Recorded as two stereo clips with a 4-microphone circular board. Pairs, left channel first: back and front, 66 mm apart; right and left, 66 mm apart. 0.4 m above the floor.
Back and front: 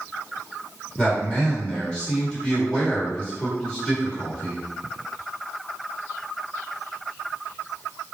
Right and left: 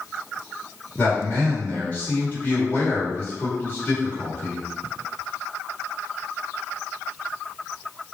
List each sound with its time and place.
1.0 s a man speaking: 110° right, 1.6 m